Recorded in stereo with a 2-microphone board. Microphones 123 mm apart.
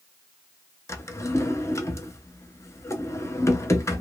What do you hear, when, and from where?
0.9 s a drawer: 25° left (ahead or behind), 0.6 m